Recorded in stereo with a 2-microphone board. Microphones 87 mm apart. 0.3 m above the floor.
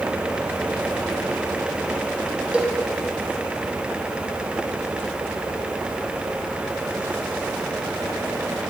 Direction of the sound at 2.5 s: 10° right (ahead or behind).